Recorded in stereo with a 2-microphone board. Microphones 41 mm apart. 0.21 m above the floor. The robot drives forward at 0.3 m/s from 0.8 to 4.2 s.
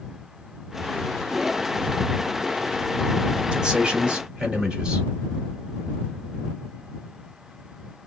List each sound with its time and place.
3.5 s a man speaking: 20° right (ahead or behind), 1.1 m